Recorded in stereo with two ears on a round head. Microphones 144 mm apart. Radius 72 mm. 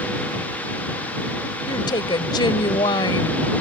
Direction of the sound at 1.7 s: 30° left (ahead or behind).